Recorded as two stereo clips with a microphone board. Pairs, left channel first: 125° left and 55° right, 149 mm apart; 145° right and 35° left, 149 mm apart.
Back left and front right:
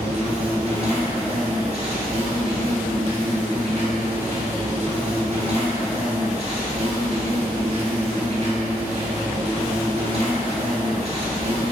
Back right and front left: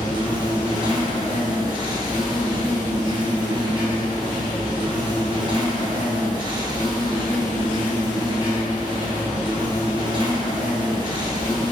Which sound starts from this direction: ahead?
An insect, at 0.0 s.